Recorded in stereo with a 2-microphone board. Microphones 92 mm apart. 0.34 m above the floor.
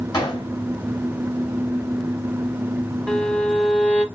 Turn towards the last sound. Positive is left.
turn(degrees=10)  # may be behind; listen again after turning